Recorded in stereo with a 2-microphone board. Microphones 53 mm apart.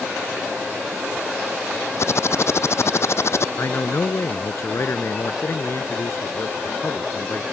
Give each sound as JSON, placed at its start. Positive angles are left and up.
{"t": 2.0, "sound": "typing on a keyboard", "side_deg": 55}
{"t": 3.6, "sound": "a man speaking", "side_deg": 50}